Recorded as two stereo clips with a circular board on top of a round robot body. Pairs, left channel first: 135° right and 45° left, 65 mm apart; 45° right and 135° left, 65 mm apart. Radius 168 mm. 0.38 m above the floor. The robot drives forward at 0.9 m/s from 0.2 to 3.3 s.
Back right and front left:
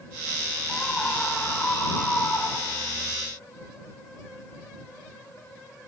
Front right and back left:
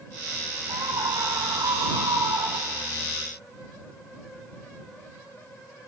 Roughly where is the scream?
Behind left.